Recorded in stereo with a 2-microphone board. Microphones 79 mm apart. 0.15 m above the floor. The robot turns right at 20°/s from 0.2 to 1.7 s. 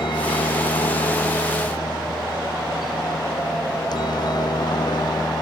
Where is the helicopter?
75° left (ahead or behind); by 5.4 s 60° left (ahead or behind).